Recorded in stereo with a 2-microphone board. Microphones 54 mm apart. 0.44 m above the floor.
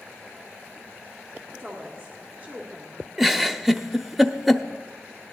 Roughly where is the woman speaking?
Right.